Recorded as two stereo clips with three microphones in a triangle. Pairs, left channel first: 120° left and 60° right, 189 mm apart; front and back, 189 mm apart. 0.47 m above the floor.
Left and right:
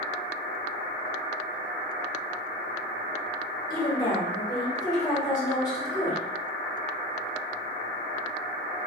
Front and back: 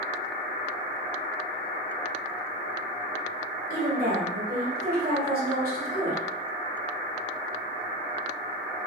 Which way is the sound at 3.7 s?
175° right.